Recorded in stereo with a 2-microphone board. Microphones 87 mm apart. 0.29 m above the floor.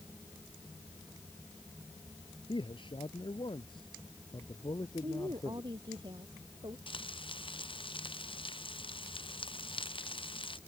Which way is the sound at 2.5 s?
80° left.